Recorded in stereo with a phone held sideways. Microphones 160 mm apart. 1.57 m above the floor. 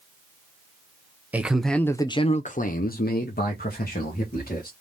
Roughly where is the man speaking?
Centre.